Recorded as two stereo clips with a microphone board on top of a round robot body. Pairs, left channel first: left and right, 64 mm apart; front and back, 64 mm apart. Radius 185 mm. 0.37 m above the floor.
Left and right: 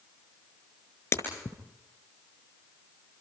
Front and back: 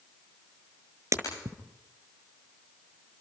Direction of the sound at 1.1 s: 140° left.